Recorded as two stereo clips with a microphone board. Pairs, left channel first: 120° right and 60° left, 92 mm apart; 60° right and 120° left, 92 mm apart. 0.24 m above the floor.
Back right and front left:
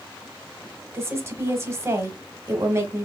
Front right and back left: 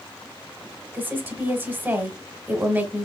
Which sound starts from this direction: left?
A woman speaking, at 0.9 s.